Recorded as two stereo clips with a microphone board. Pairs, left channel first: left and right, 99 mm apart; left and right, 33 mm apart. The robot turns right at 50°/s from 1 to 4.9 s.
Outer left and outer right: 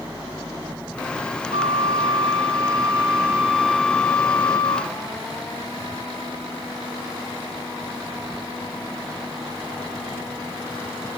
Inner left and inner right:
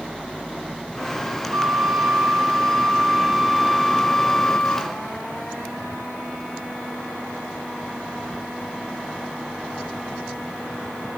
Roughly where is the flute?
Behind right.